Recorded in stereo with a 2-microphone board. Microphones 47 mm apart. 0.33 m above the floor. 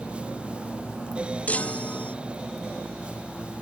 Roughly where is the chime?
Left.